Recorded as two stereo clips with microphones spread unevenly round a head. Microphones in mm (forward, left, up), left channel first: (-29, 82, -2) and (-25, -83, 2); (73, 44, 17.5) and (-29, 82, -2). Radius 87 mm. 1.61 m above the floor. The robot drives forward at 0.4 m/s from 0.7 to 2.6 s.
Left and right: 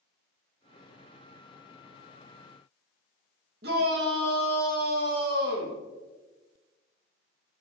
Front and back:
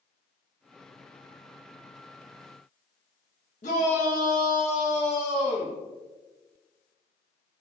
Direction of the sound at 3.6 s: 50° right.